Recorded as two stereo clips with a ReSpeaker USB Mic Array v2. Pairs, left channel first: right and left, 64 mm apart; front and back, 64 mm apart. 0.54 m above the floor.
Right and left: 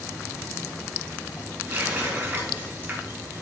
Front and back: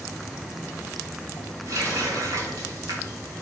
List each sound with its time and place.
1.7 s a running tap: 150° left, 2.5 m